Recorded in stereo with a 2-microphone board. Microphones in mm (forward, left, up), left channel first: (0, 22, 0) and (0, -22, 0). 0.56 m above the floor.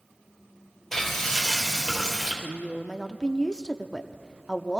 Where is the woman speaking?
15° left (ahead or behind), 0.7 m.